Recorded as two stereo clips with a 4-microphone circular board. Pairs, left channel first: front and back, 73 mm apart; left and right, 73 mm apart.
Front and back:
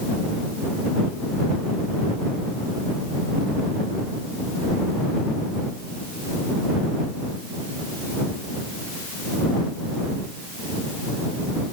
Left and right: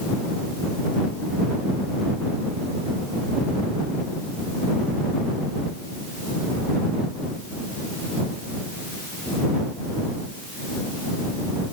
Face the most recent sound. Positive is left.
No sound to turn to.